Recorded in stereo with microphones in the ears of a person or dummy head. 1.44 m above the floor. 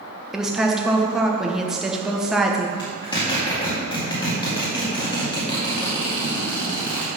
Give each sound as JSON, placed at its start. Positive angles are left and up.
{"t": 0.3, "sound": "a woman speaking", "side_deg": -5, "distance_m": 1.1}
{"t": 2.8, "sound": "a zipper", "side_deg": 30, "distance_m": 2.0}